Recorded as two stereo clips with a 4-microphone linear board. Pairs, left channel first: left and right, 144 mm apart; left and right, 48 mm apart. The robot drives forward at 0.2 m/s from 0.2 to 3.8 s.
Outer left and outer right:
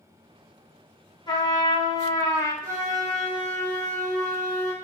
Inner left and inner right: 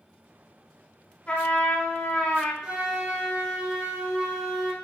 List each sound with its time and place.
1.3 s a trumpet: 30° left (ahead or behind), 0.7 m
2.6 s a flute: 20° right (ahead or behind), 1.3 m